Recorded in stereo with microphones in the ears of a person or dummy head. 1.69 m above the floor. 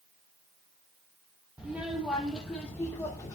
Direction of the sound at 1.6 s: 5° right (ahead or behind).